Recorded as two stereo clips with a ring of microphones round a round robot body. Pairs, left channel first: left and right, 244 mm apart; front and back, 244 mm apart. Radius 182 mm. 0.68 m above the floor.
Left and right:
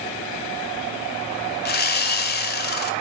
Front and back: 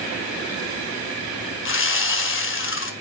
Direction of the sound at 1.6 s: 40° left.